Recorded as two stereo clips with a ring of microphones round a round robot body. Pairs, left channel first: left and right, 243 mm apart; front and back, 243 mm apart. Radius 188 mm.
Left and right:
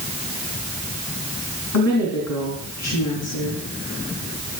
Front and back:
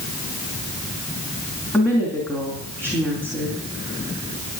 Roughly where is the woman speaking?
Left.